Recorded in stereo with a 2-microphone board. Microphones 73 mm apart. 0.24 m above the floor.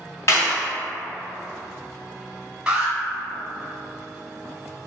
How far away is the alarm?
About 0.9 m.